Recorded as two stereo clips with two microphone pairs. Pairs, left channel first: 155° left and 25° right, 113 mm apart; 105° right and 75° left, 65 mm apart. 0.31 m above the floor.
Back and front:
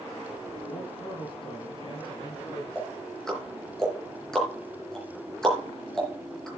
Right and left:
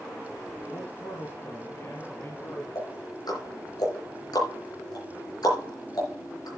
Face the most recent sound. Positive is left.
turn(degrees=-120)